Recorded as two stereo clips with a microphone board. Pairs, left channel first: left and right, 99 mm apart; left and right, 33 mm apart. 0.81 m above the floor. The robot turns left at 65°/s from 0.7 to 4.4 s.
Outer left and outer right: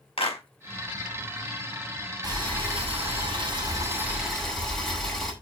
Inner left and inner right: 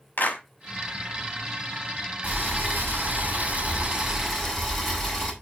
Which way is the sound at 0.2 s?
80° left.